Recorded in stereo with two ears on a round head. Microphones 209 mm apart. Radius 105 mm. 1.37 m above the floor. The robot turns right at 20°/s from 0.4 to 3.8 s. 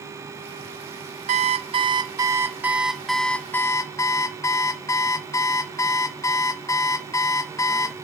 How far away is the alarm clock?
About 0.8 m.